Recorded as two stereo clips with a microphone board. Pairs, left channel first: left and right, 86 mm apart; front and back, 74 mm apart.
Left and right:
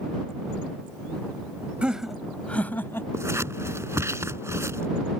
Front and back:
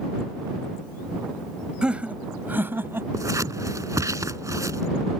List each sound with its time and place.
1.8 s laughter: 135° right; by 3.0 s 140° left
3.1 s scissors: 145° right